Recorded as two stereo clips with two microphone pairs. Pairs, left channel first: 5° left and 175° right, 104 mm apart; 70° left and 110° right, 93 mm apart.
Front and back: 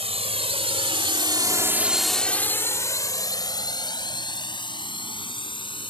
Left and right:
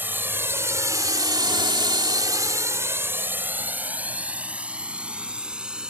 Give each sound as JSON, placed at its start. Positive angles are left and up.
{"t": 0.0, "sound": "a drone", "azimuth_deg": 180}